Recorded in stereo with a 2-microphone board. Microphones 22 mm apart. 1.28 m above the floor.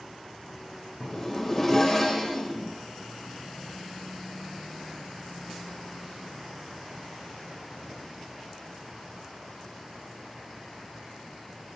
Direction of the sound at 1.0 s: 20° left (ahead or behind).